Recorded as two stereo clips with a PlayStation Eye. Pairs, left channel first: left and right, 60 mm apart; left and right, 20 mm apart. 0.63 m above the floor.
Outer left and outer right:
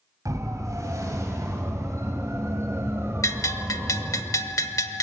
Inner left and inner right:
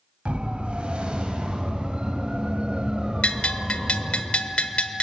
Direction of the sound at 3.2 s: 70° left (ahead or behind).